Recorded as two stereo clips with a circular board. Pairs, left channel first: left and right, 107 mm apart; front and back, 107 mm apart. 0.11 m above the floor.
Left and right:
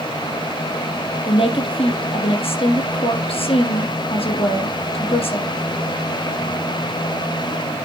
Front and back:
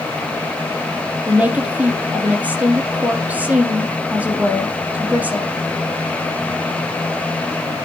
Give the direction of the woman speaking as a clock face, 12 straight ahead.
8 o'clock.